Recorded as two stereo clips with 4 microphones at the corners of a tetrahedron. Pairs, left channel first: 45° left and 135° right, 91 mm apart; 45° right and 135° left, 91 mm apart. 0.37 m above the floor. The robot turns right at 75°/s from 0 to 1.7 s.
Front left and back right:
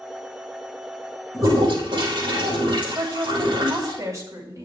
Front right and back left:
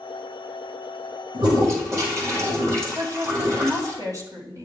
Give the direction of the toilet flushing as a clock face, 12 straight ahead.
7 o'clock.